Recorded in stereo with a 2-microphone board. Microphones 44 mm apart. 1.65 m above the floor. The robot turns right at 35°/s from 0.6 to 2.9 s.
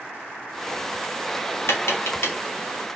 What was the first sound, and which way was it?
Tapping, 70° left (ahead or behind).